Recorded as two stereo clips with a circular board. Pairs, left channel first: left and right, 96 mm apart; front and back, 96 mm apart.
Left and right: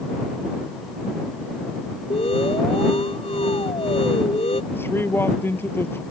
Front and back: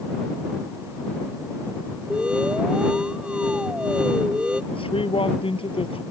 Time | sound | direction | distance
2.1 | an alarm | 100° left | ?
4.7 | a man speaking | 25° left | ?